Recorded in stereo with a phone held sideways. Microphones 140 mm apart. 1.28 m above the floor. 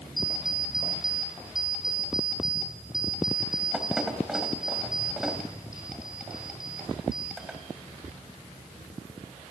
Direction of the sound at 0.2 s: Centre (ahead or behind).